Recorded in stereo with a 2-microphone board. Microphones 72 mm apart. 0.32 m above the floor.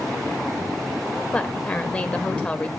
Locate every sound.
1.3 s a woman speaking: 20° left (ahead or behind), 0.9 m